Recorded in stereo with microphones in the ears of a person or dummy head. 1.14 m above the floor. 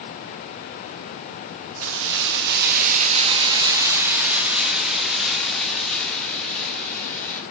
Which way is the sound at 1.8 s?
75° right (ahead or behind).